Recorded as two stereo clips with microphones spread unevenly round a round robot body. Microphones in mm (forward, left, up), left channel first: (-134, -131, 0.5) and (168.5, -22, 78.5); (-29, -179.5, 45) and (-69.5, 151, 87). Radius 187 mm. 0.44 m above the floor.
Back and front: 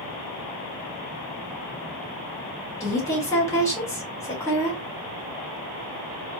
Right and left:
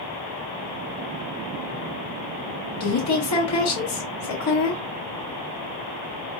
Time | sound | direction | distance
2.8 | a woman speaking | 100° right | 1.9 m